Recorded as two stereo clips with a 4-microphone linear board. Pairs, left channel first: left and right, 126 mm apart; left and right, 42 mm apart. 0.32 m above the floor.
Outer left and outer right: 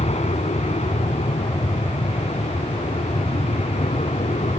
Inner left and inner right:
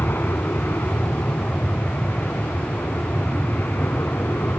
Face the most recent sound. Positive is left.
turn(degrees=60)  # may be behind; listen again after turning